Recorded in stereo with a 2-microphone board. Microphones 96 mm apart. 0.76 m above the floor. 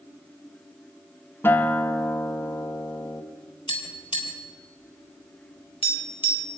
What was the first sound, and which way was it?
A guitar, 25° left (ahead or behind).